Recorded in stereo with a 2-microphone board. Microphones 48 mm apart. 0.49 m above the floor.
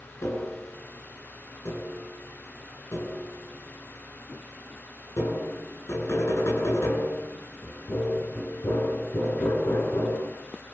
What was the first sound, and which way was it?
Tapping, 80° left.